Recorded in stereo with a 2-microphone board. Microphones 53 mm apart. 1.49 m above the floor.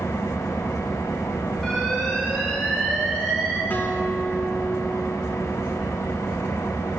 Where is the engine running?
80° left, 0.9 m.